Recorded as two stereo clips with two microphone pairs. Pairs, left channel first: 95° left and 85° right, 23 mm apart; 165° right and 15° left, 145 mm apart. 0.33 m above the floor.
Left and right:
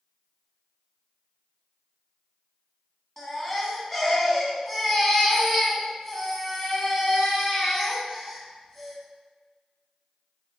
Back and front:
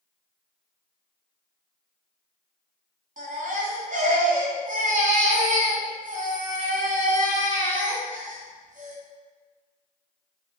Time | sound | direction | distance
3.2 | a baby crying | 25° left | 1.8 m